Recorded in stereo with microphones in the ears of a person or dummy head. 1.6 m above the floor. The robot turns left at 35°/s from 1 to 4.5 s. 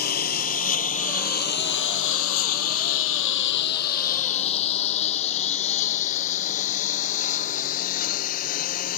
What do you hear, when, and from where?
0.0 s a lawn mower: 50° left (ahead or behind)